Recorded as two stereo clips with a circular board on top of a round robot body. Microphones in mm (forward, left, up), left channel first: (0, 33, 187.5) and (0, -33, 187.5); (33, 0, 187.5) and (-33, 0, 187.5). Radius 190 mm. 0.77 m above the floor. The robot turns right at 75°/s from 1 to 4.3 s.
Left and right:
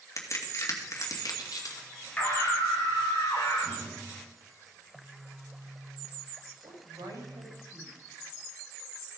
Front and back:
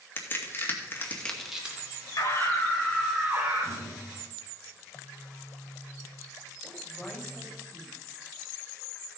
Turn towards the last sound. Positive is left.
turn(degrees=-90)